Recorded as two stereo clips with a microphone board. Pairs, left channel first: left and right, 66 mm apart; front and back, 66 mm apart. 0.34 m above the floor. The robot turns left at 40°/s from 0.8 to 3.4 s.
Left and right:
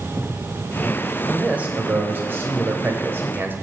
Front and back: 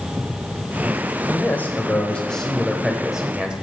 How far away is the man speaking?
About 1.3 m.